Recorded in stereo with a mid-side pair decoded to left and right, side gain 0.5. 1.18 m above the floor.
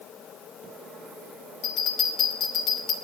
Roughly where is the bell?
Left.